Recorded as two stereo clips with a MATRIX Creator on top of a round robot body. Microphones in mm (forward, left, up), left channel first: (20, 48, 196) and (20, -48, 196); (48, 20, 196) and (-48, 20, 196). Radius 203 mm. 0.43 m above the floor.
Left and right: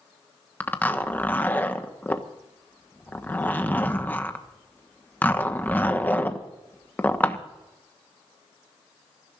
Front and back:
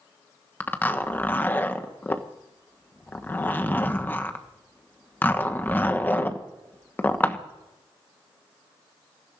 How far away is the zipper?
About 1.4 m.